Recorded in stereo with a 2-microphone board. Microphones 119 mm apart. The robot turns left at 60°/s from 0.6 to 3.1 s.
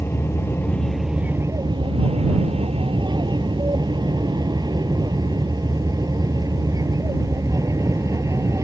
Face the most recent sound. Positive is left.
turn(degrees=-30)  # may be behind; listen again after turning